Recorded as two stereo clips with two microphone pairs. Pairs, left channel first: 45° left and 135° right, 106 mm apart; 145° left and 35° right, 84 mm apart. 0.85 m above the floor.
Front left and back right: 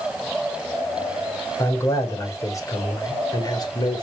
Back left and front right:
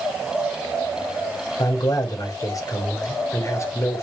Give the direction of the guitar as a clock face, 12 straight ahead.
I don't hear a guitar.